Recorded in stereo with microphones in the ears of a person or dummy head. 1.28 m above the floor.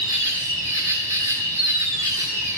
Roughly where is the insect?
Centre.